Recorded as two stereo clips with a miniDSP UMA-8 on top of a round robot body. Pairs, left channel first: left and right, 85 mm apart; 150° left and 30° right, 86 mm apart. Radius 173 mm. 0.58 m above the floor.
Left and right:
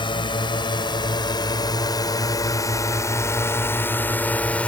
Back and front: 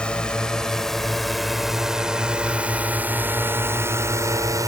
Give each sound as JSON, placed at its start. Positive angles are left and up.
{"t": 0.0, "sound": "a drone", "azimuth_deg": 70}